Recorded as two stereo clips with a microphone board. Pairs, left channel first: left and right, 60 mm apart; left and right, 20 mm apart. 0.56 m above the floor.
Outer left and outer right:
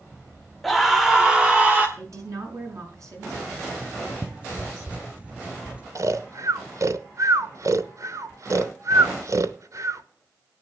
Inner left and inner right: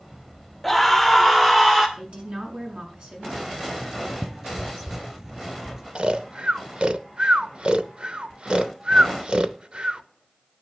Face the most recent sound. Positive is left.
turn(degrees=-60)  # may be behind; listen again after turning